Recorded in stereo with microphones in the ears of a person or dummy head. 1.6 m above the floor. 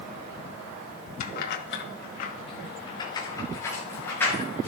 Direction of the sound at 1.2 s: 50° left (ahead or behind).